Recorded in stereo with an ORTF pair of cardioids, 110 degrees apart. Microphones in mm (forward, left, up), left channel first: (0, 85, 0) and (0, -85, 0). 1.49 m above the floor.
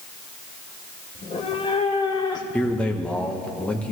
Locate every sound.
1.1 s a cat meowing: 45° left, 2.5 m; by 3.5 s 5° left, 2.5 m
2.5 s a man speaking: 5° left, 1.4 m